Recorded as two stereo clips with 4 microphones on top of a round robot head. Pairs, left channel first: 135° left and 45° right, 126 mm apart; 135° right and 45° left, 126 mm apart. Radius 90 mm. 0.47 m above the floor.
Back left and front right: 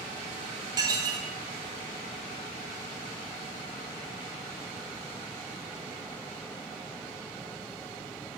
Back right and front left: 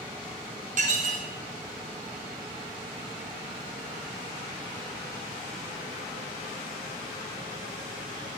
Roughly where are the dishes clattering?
Ahead.